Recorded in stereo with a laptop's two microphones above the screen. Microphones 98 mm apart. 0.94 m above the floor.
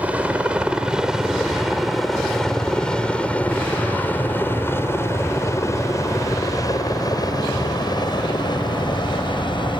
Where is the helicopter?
15° right (ahead or behind); by 9.8 s 55° left (ahead or behind).